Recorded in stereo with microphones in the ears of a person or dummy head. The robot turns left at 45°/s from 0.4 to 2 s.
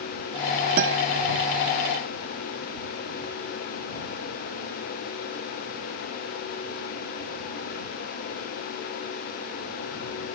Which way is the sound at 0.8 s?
55° right (ahead or behind).